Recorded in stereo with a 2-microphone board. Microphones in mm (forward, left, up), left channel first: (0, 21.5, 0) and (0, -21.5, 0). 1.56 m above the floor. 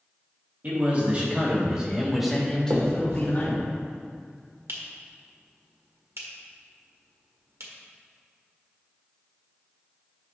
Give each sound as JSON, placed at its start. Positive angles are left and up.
{"t": 0.6, "sound": "a man speaking", "side_deg": -40, "distance_m": 3.0}
{"t": 2.7, "sound": "a finger snap", "side_deg": -75, "distance_m": 1.5}